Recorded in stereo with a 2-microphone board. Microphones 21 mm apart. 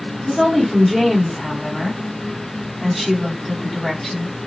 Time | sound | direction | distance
0.3 | a woman speaking | 20° left (ahead or behind) | 1.6 m